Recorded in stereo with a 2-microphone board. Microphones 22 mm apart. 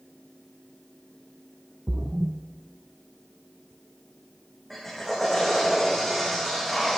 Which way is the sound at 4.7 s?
10° left (ahead or behind).